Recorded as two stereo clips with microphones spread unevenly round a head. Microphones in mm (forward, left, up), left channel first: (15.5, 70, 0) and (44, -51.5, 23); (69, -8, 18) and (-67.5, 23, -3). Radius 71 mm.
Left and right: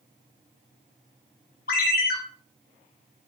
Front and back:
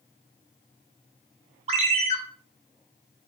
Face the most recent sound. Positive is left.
turn(degrees=120)